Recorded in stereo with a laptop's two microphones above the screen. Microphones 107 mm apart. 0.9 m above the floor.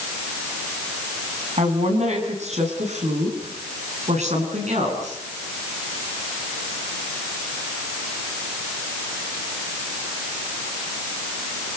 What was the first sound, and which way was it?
A woman speaking, 75° right (ahead or behind).